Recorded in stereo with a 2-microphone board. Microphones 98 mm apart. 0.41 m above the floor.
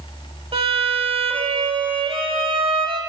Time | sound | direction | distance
0.5 | a violin | 75° right (ahead or behind) | 0.9 m